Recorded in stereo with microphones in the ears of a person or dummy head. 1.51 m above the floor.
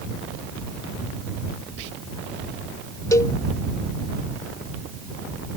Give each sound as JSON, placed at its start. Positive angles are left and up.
{"t": 1.8, "sound": "whispering", "side_deg": -65}
{"t": 3.1, "sound": "a cowbell", "side_deg": 15}